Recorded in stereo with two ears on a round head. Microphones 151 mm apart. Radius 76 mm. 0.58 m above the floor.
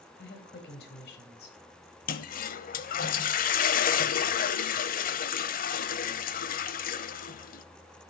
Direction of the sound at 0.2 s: 65° left (ahead or behind).